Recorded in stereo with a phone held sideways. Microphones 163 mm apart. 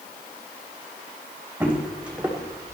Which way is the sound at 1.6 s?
10° right (ahead or behind).